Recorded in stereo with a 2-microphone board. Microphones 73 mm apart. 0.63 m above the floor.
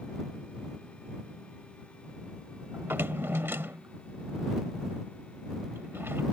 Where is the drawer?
35° right (ahead or behind).